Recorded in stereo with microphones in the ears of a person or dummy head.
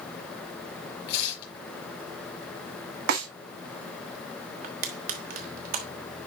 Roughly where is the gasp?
I don't hear a gasp.